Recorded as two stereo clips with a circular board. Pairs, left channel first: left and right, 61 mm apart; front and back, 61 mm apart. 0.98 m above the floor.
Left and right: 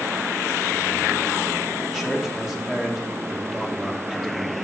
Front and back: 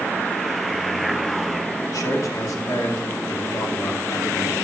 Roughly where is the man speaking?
Ahead.